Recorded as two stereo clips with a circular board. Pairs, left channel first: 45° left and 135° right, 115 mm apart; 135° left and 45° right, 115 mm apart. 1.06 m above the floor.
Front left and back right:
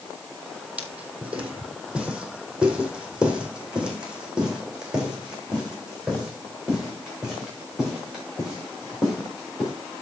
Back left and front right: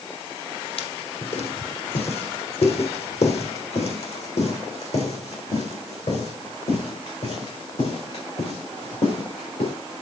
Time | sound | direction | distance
0.8 | footsteps | 150° left | 2 m